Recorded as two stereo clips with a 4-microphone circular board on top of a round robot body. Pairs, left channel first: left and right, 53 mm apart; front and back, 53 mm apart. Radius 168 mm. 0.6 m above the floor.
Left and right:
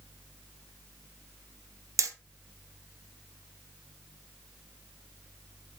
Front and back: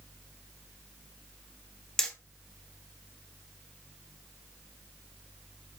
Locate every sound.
2.0 s hammering: 80° right, 1.9 m